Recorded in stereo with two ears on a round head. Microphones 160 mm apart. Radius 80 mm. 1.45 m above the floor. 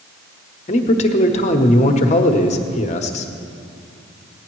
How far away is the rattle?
No rattle in this recording.